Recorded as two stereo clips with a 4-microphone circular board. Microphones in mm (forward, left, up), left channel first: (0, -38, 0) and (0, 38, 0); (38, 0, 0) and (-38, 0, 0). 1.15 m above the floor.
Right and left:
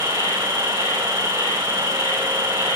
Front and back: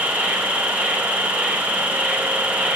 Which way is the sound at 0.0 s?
105° right.